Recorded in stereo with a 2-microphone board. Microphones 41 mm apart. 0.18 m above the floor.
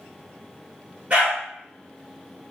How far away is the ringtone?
I don't hear a ringtone.